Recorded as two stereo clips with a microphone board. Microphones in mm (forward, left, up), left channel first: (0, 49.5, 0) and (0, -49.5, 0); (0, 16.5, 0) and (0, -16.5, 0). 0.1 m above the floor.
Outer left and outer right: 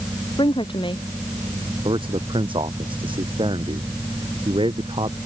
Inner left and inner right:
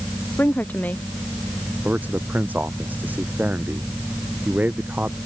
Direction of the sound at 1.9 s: 60° right (ahead or behind).